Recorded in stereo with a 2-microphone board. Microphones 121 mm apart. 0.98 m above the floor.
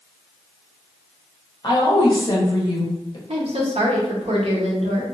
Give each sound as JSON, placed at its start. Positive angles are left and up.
{"t": 1.6, "sound": "a woman speaking", "side_deg": 35, "distance_m": 1.0}
{"t": 3.3, "sound": "a woman speaking", "side_deg": -65, "distance_m": 0.9}